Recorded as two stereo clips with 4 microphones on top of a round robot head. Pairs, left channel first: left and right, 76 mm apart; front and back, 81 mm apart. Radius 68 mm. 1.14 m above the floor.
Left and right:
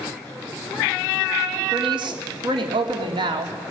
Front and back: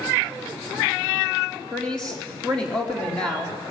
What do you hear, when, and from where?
1.7 s a woman speaking: 80° right, 3.5 m